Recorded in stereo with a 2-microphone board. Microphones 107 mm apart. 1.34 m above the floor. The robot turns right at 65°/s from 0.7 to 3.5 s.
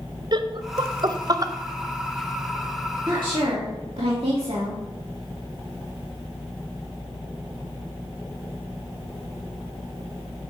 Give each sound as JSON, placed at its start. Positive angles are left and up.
{"t": 0.3, "sound": "laughter", "side_deg": -45, "distance_m": 0.6}
{"t": 3.1, "sound": "a woman speaking", "side_deg": -35, "distance_m": 2.0}